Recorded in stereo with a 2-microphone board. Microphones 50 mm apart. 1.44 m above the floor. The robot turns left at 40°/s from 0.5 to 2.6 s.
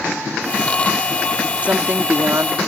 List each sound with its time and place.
1.6 s a woman speaking: 30° right; by 2.6 s 65° right